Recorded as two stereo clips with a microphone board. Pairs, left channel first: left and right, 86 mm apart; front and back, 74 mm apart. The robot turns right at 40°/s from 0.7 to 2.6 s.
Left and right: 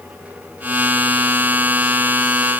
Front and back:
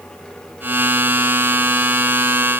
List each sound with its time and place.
Only background noise.